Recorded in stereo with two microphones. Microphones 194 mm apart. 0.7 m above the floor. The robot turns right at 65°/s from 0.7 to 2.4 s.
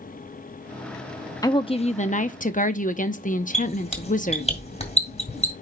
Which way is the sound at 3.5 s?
35° left (ahead or behind).